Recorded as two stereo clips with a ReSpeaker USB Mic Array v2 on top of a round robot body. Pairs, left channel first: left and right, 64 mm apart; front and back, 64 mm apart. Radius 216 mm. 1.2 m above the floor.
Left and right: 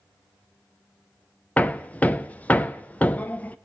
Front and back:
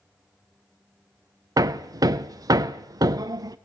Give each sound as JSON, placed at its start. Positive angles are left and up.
{"t": 1.6, "sound": "hammering", "azimuth_deg": 155, "distance_m": 0.6}